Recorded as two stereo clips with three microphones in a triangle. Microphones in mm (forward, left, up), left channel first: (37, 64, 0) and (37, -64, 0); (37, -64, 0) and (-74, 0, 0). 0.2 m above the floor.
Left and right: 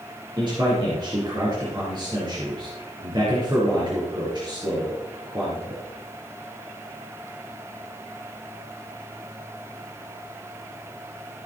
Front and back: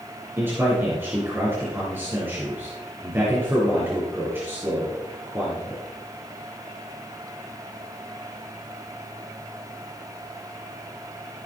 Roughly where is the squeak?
I don't hear a squeak.